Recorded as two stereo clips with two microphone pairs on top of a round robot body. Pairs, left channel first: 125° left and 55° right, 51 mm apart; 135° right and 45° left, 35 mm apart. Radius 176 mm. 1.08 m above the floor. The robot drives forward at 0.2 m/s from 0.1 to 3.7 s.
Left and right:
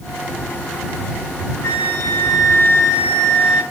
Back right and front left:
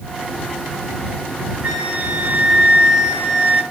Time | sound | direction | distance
1.6 | a flute | 90° left | 1.0 m